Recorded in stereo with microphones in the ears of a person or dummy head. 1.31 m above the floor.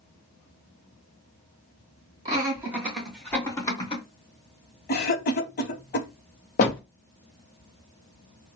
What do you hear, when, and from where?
2.2 s laughter: 20° right (ahead or behind), 2 m; by 4.0 s 25° left (ahead or behind), 1.7 m
4.9 s a cough: 50° left (ahead or behind), 0.7 m
6.6 s a door slam: 40° left (ahead or behind), 0.7 m